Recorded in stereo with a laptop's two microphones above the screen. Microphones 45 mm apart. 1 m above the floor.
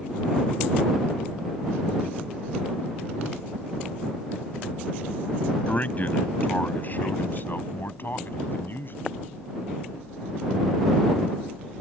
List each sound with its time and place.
5.7 s a man speaking: 35° left (ahead or behind); by 9.0 s 50° left (ahead or behind)